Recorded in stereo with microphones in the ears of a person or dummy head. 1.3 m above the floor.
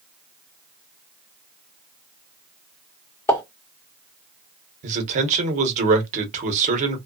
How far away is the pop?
About 1.3 m.